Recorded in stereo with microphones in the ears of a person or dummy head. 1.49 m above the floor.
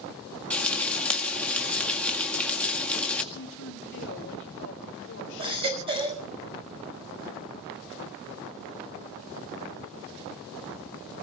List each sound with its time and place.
0.5 s frying: 5° left (ahead or behind), 1.8 m
3.3 s a woman speaking: 70° left (ahead or behind), 2.5 m
5.4 s a baby crying: 30° right (ahead or behind), 5.5 m